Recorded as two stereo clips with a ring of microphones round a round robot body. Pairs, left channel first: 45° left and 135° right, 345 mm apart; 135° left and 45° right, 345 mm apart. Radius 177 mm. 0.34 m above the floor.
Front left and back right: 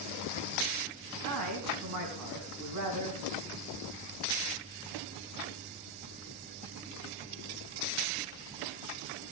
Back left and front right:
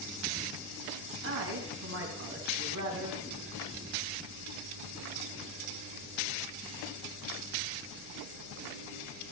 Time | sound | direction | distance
1.2 | a man speaking | 100° right | 3.5 m